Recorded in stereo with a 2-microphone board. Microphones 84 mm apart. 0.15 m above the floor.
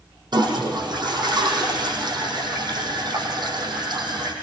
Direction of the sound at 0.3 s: 60° right (ahead or behind).